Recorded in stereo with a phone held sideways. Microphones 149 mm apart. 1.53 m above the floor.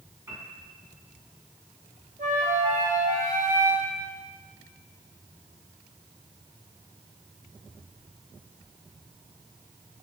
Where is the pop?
I don't hear a pop.